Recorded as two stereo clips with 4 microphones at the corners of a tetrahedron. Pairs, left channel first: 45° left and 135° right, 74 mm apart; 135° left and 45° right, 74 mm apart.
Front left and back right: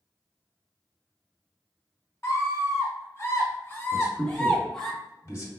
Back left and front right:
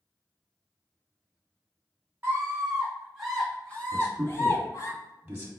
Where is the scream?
10° left, 1.4 m; by 4.9 s 130° left, 1.4 m.